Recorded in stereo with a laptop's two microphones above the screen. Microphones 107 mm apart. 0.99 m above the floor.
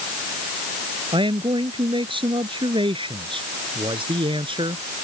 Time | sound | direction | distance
1.1 | a man speaking | 55° right (ahead or behind) | ?